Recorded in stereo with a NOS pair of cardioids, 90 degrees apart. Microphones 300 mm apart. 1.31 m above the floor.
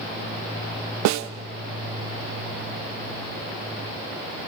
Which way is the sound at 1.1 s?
65° right.